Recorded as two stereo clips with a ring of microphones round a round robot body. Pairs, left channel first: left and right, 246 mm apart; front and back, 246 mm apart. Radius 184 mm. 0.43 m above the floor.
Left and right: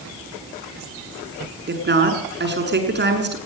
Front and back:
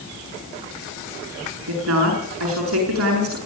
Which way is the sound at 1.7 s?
135° right.